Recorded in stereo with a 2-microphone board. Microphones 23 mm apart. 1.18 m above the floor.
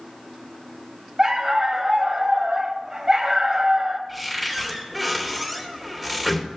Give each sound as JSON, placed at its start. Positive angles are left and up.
{"t": 1.2, "sound": "a dog barking", "side_deg": -30, "distance_m": 1.4}
{"t": 4.1, "sound": "a cupboard door", "side_deg": -5, "distance_m": 2.5}